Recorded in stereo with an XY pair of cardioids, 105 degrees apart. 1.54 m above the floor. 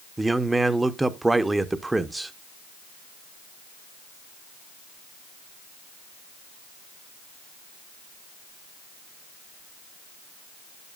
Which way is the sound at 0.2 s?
15° right.